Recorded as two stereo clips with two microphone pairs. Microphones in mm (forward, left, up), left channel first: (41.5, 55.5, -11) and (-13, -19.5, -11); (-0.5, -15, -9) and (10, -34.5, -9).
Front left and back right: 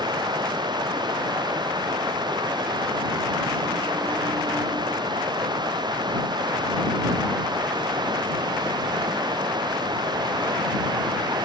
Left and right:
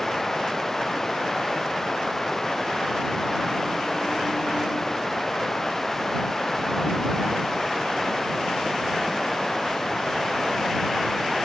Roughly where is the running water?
Behind.